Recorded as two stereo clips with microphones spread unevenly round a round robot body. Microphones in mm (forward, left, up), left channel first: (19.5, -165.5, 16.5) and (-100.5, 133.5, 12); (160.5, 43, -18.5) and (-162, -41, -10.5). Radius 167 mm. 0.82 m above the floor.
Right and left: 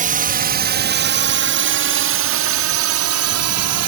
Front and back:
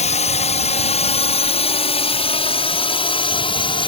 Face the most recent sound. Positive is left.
turn(degrees=85)